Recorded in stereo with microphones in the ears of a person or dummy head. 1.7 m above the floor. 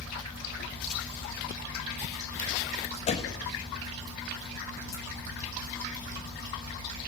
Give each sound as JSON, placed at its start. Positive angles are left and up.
{"t": 3.1, "sound": "a door slam", "side_deg": 35, "distance_m": 2.0}